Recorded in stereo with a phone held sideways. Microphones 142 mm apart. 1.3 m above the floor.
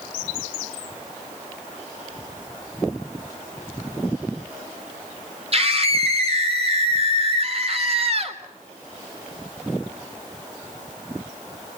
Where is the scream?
45° right (ahead or behind), 3.5 m.